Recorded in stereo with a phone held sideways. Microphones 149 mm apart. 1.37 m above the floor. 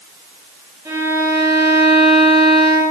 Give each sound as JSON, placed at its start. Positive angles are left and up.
{"t": 0.8, "sound": "a violin", "side_deg": -20, "distance_m": 6.5}